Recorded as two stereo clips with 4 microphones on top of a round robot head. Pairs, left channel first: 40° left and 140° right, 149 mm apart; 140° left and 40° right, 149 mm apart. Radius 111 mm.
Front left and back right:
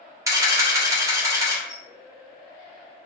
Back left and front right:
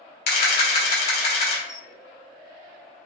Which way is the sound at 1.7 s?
165° left.